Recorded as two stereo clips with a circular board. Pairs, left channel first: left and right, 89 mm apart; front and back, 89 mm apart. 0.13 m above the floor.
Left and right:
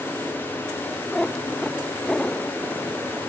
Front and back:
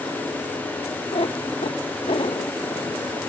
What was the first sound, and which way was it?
A cat meowing, 5° left.